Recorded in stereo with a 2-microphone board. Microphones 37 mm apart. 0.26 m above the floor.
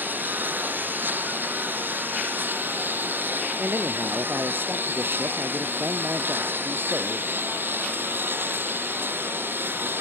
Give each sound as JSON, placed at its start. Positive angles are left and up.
{"t": 0.0, "sound": "a lawn mower", "side_deg": -60}
{"t": 3.6, "sound": "a man speaking", "side_deg": -75}